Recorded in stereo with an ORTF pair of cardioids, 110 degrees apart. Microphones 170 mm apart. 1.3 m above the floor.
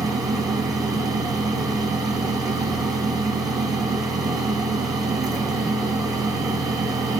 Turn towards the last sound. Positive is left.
turn(degrees=-20)